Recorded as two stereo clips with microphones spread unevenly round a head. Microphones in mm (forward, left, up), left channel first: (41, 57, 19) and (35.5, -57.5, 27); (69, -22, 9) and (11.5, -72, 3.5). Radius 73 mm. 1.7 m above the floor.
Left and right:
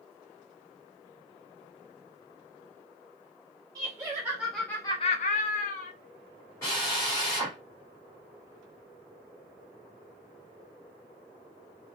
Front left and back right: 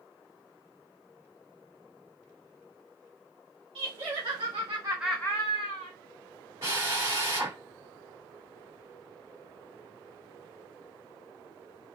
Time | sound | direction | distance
3.8 | laughter | 160° right | 1.3 m
6.6 | a drill | 160° left | 2 m